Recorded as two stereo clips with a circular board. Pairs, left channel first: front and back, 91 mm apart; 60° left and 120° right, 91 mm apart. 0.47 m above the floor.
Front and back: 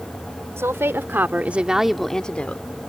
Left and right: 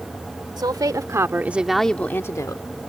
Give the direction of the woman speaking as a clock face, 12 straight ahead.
4 o'clock.